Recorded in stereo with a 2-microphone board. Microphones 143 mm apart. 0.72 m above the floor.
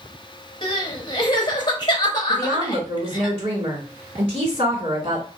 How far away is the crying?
About 0.9 m.